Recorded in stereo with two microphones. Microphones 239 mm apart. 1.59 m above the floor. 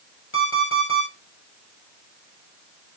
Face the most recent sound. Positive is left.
turn(degrees=60)  # may be behind; listen again after turning